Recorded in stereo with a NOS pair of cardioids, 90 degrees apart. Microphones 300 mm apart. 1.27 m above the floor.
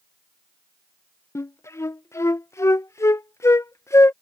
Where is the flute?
10° left.